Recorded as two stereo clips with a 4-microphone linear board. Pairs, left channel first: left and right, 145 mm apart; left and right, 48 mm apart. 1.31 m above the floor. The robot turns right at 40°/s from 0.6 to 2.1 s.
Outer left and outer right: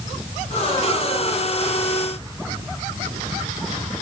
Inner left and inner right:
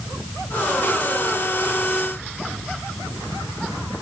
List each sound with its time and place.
Only background noise.